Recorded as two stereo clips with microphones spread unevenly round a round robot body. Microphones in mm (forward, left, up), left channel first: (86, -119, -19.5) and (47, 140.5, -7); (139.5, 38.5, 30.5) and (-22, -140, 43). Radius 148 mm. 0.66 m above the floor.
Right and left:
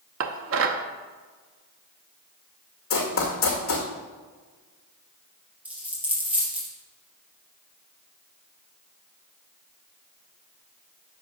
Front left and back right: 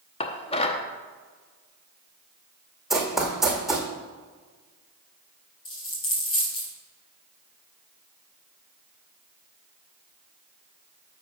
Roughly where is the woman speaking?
No woman speaking in this recording.